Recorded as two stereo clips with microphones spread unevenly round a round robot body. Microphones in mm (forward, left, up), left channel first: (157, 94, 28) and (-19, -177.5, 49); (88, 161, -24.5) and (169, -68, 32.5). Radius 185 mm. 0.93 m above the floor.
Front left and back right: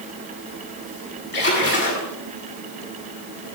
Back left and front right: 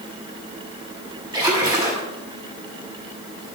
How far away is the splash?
About 8 m.